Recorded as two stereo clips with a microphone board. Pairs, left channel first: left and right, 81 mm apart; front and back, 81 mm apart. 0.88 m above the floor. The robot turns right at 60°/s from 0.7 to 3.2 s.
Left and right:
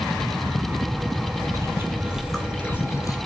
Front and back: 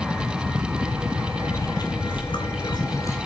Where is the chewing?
45° right, 1.9 m; by 3.2 s 50° left, 1.9 m.